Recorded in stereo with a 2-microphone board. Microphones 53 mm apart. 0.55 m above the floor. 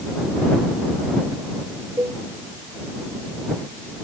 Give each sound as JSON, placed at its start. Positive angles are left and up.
{"t": 2.0, "sound": "a cowbell", "side_deg": -65}